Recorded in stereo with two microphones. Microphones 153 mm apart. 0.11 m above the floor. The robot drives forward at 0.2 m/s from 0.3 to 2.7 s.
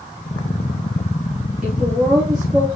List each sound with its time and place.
1.6 s a woman speaking: centre (ahead or behind), 1.8 m